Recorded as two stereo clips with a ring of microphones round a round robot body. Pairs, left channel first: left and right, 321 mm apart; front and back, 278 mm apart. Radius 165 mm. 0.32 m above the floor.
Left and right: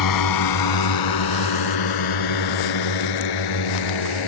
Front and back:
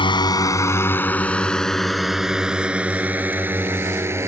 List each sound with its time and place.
0.0 s a drone: 70° left; by 4.3 s 100° left